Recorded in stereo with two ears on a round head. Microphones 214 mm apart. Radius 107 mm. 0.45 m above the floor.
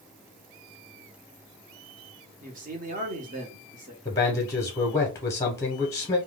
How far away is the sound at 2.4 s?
About 0.9 m.